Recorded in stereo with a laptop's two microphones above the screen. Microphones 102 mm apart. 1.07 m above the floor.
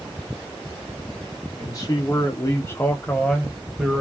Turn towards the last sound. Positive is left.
turn(degrees=-10)  # may be behind; listen again after turning